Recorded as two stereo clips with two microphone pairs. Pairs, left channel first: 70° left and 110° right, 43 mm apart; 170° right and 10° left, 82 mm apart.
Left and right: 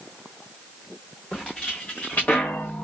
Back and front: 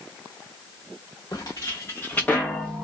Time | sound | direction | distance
1.3 | footsteps | 145° left | 1.0 m